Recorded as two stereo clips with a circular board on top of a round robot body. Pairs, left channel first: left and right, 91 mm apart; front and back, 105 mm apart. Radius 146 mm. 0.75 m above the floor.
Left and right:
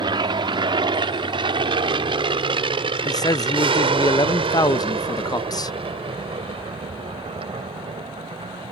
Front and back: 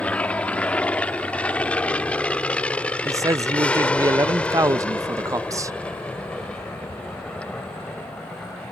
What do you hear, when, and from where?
0.0 s an aircraft: 75° right; by 8.7 s 80° right
3.0 s a man speaking: 125° left